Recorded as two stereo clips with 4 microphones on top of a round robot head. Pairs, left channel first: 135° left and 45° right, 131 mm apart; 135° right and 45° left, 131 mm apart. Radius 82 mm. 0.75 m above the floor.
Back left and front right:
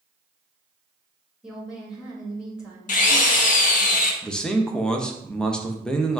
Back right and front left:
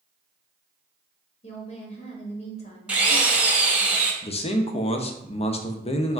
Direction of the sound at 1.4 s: 125° right.